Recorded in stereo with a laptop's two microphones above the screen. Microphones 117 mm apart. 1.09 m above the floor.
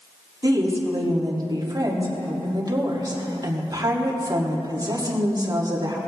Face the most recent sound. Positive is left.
turn(degrees=-35)  # may be behind; listen again after turning